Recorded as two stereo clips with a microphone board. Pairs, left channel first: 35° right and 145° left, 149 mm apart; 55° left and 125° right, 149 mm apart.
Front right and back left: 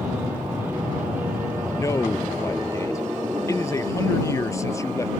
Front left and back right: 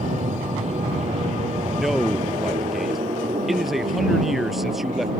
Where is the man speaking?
40° right.